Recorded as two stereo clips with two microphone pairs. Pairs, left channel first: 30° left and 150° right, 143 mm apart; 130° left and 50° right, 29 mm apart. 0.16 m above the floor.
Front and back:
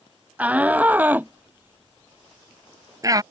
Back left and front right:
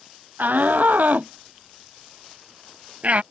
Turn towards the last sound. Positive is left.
turn(degrees=-90)